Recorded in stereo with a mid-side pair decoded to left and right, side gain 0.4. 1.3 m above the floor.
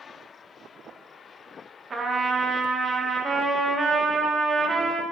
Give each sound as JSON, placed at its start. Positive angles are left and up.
{"t": 1.9, "sound": "a trumpet", "azimuth_deg": -40, "distance_m": 2.0}